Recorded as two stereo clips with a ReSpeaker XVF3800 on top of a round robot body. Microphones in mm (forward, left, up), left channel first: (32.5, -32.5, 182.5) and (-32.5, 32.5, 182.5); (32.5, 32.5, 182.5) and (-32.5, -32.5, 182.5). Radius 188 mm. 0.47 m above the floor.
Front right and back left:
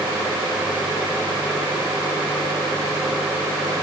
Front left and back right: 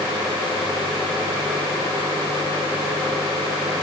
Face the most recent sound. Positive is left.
No sound to turn to.